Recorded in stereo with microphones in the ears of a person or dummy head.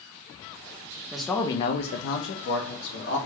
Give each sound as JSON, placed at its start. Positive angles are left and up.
{"t": 1.1, "sound": "a man speaking", "side_deg": 0, "distance_m": 0.6}